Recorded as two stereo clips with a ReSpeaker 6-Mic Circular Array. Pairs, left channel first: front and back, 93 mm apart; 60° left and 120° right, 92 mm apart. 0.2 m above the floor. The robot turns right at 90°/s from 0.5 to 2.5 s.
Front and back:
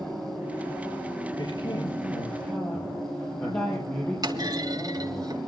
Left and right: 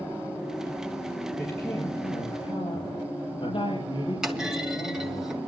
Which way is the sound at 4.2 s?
160° left.